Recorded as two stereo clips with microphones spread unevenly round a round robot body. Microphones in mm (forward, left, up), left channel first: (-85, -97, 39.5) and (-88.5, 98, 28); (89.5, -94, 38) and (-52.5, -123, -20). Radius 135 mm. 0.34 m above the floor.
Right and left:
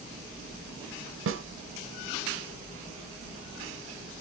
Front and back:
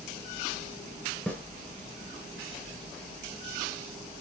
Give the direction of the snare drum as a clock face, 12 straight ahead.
9 o'clock.